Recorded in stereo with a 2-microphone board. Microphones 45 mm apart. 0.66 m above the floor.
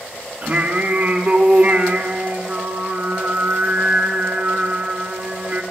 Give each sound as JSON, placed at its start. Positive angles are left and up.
{"t": 0.4, "sound": "singing", "side_deg": -35, "distance_m": 1.5}